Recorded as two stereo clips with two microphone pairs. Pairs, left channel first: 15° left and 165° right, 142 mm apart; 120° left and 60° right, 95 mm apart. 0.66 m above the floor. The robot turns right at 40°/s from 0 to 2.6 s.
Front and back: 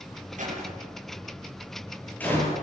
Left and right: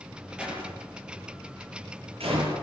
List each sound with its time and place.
0.4 s a door slam: 140° right, 10 m; by 2.5 s 55° right, 10 m